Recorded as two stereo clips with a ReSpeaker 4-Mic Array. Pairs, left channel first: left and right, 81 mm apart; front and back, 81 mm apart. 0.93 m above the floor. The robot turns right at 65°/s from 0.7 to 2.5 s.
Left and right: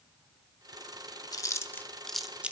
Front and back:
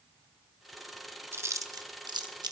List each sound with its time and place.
1.3 s chewing: 120° left, 0.8 m; by 2.5 s 160° right, 0.8 m